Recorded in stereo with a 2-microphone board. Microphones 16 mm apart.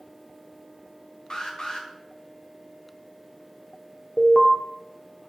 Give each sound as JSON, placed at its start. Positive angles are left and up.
{"t": 1.3, "sound": "an alarm", "side_deg": 55, "distance_m": 1.3}
{"t": 4.2, "sound": "an alarm", "side_deg": 35, "distance_m": 1.2}